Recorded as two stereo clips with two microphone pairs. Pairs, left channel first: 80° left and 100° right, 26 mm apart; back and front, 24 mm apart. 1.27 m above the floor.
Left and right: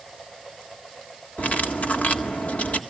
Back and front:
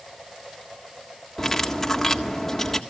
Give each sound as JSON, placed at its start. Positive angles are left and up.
{"t": 1.4, "sound": "cutlery clinking", "azimuth_deg": 105, "distance_m": 1.7}